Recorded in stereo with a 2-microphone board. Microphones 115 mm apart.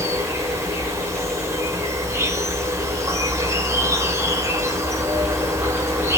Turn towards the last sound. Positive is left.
turn(degrees=-25)  # may be behind; listen again after turning